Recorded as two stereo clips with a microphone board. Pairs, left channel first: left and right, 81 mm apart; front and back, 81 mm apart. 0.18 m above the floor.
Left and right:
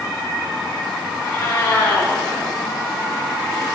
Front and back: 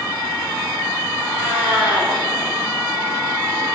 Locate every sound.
1.2 s a cat meowing: 155° left, 4 m